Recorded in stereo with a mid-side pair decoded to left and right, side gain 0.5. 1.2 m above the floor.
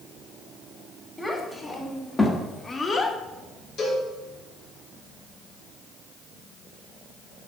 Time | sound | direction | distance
1.2 | a child speaking | 10° left | 2 m
3.8 | a cowbell | 60° left | 3 m